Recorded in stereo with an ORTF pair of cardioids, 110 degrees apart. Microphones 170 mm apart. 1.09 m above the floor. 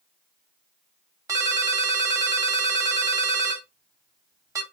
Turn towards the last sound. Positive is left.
turn(degrees=-20)